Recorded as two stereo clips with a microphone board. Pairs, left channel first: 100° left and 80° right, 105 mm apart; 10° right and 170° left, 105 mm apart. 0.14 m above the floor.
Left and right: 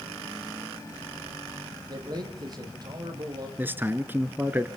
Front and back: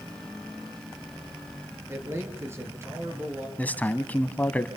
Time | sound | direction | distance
1.9 | a man speaking | 125° right | 4 m
3.6 | a man speaking | 55° right | 1.0 m